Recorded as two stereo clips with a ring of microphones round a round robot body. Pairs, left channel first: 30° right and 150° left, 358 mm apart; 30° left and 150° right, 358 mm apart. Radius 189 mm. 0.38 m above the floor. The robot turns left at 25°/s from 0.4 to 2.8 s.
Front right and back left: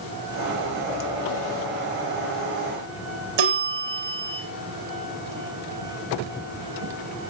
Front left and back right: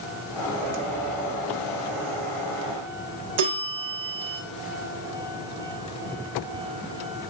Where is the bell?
165° left, 5 m.